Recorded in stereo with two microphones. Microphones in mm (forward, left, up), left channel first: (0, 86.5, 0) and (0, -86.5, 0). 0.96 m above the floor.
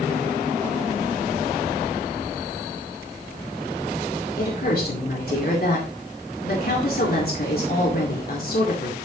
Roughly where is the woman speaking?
Left.